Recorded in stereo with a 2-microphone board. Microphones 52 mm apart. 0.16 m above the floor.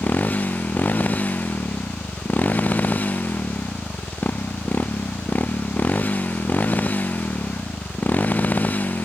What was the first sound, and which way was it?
A motorcycle, 35° left (ahead or behind).